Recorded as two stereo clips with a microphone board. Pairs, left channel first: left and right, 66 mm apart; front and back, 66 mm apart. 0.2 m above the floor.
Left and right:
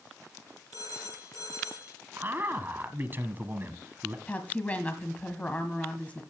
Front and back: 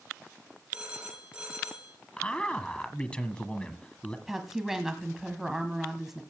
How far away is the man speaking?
About 1.3 m.